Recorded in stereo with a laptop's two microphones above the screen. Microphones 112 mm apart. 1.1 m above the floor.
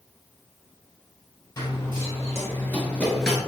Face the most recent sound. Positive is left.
turn(degrees=5)  # may be behind; listen again after turning